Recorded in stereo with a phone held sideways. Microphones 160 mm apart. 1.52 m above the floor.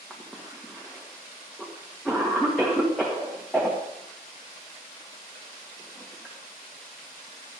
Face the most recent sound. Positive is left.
turn(degrees=0)  # may be behind; listen again after turning